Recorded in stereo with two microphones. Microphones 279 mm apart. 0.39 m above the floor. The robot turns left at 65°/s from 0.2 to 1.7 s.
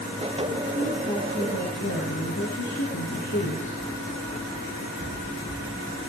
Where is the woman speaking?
165° right, 6 m; by 3.8 s 130° left, 6 m.